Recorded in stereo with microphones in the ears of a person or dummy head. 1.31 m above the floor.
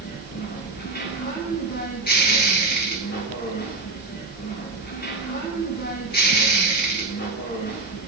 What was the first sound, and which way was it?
A machine running, 45° left (ahead or behind).